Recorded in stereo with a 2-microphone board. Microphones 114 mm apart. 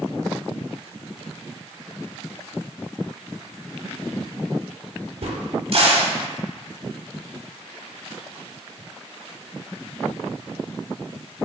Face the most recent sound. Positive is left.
turn(degrees=-55)  # may be behind; listen again after turning